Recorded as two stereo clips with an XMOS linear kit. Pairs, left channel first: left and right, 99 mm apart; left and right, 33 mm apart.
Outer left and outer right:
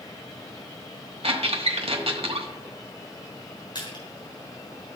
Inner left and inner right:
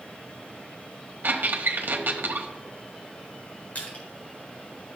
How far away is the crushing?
About 4 m.